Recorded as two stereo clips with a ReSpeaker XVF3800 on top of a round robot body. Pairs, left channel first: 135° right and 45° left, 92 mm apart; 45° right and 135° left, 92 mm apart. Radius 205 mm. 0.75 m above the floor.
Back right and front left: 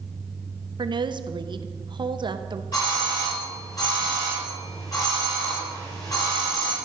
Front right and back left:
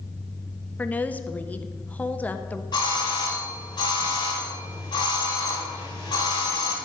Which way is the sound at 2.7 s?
85° right.